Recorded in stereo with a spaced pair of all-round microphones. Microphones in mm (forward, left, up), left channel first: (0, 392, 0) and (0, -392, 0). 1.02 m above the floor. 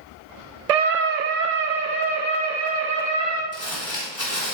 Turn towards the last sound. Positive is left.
turn(degrees=45)  # may be behind; listen again after turning